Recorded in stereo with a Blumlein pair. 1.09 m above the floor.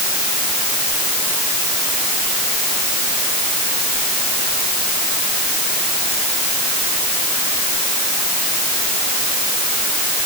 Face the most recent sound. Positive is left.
No sound to turn to.